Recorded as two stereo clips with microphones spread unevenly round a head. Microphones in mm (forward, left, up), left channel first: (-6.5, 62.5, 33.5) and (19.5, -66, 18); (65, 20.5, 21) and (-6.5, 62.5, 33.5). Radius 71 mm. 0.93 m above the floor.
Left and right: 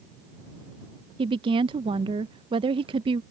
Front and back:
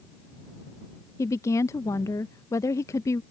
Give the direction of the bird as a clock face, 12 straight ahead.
I don't hear a bird.